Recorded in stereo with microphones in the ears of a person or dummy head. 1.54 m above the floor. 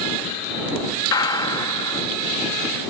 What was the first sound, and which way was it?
A gunshot, 30° left (ahead or behind).